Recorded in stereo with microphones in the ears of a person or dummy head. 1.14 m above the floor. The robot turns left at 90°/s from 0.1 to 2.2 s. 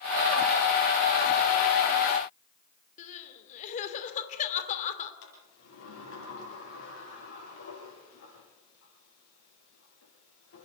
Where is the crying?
45° left (ahead or behind), 2.5 m.